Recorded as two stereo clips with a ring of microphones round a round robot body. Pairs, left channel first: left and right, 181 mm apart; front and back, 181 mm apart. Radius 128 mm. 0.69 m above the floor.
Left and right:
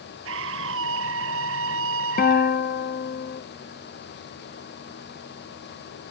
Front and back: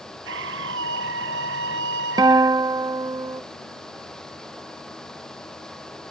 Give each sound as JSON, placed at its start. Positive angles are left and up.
{"t": 0.2, "sound": "a scream", "azimuth_deg": -130}
{"t": 2.2, "sound": "a guitar", "azimuth_deg": 115}